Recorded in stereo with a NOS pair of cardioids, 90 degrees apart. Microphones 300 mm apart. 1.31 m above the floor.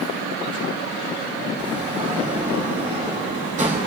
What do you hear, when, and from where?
1.6 s a sliding door: 25° right, 6.5 m